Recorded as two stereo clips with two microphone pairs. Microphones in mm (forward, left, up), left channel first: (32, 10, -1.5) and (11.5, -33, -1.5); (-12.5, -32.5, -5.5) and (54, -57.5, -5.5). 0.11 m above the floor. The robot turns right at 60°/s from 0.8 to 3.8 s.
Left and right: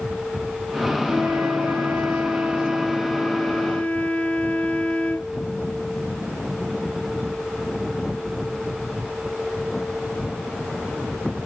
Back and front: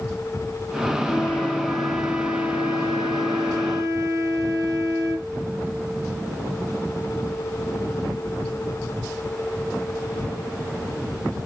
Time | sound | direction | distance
1.1 | a flute | 155° right | 1.0 m